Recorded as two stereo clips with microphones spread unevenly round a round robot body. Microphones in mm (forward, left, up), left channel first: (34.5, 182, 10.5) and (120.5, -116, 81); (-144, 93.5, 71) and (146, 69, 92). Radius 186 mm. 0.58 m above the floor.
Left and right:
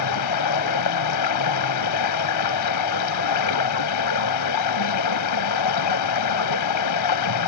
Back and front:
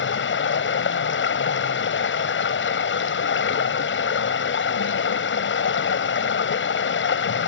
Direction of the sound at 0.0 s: 130° left.